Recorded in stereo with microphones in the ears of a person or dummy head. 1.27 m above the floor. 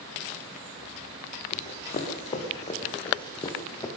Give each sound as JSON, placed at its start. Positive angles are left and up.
{"t": 1.5, "sound": "running footsteps", "side_deg": 40, "distance_m": 3.5}